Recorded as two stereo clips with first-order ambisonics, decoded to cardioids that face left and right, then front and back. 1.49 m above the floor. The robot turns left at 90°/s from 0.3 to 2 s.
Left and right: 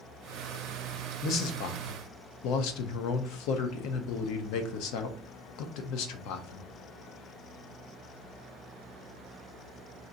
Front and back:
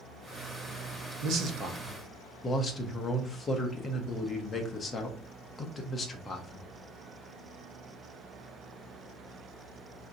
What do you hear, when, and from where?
1.2 s a man speaking: 145° left, 0.6 m; by 6.7 s 75° left, 0.6 m